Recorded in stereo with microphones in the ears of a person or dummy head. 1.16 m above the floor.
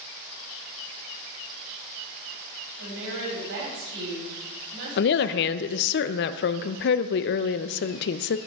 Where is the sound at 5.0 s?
55° left (ahead or behind), 0.6 m.